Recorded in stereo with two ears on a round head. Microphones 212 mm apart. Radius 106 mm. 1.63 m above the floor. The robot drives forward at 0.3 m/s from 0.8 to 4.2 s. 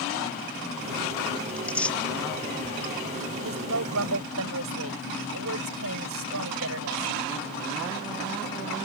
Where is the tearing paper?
5° left (ahead or behind).